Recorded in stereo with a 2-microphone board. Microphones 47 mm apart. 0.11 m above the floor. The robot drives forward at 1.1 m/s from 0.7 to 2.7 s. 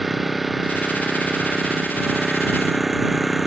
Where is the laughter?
No laughter in this recording.